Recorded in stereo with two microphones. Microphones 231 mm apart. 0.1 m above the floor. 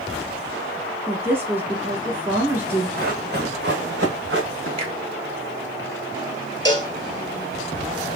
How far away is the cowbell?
About 0.6 m.